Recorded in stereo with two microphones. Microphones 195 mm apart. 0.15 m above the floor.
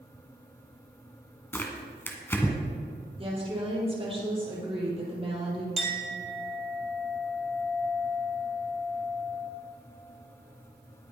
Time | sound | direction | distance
1.5 | tearing paper | 10° left (ahead or behind) | 1.7 m
3.2 | a woman speaking | 30° right (ahead or behind) | 4.5 m
5.8 | a clink | centre (ahead or behind) | 2.5 m